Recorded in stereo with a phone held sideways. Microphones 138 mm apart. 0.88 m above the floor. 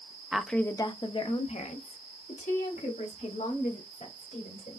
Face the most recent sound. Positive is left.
turn(degrees=80)